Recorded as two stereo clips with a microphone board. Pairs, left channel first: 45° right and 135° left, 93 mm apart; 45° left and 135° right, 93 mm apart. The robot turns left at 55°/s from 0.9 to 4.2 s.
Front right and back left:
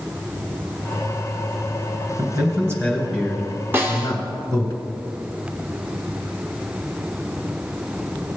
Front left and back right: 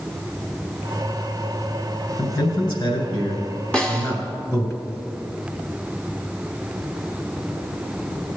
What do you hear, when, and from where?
2.2 s a man speaking: 105° left, 2.5 m; by 4.7 s 10° right, 2.5 m
3.7 s a snare drum: 105° left, 1.3 m; by 4.2 s 85° left, 1.3 m